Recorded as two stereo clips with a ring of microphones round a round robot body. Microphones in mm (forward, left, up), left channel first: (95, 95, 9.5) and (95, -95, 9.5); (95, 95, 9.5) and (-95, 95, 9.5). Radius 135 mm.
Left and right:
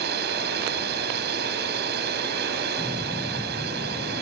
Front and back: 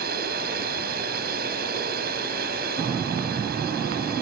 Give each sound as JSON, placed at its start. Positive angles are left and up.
{"t": 0.0, "sound": "a drone", "azimuth_deg": -130}